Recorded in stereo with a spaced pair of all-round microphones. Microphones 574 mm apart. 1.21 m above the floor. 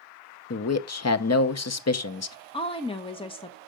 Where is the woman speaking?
10° left (ahead or behind), 0.7 m.